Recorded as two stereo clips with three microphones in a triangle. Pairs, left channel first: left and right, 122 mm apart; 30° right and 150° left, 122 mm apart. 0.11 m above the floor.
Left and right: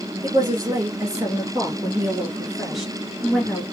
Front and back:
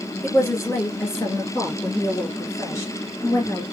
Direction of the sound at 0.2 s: 95° right.